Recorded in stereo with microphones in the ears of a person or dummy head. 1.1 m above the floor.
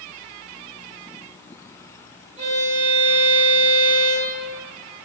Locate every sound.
2.4 s a violin: 25° right (ahead or behind), 0.9 m